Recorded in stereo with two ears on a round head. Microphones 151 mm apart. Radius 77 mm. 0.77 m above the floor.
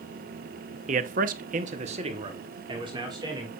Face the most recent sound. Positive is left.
turn(degrees=-25)  # may be behind; listen again after turning